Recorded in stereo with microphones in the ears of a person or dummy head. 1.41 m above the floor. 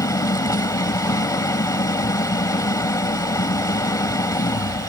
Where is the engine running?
20° left (ahead or behind).